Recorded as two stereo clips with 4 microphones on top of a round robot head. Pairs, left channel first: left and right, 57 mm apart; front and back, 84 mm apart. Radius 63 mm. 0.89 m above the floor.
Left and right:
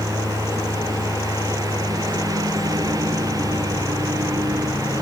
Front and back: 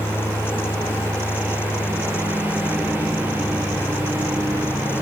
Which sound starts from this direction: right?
A lawn mower, at 0.0 s.